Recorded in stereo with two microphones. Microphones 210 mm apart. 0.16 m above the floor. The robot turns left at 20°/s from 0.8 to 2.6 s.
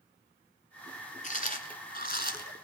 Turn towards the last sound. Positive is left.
turn(degrees=50)  # may be behind; listen again after turning